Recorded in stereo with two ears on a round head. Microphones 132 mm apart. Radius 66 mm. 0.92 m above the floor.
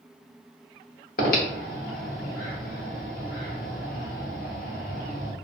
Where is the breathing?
65° left (ahead or behind), 1.0 m.